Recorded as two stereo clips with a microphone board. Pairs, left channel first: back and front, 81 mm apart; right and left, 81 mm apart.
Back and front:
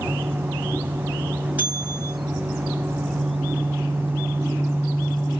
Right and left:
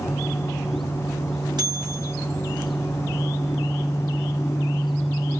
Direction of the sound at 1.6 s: 70° left.